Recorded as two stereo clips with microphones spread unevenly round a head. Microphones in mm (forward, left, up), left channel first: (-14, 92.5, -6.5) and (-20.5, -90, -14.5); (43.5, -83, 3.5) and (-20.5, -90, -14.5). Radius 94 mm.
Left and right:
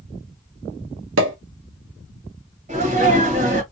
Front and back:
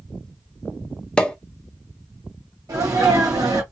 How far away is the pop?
About 0.7 m.